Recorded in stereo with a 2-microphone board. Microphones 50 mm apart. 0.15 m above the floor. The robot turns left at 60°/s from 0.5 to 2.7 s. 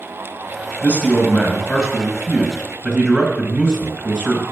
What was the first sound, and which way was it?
A man speaking, 85° left.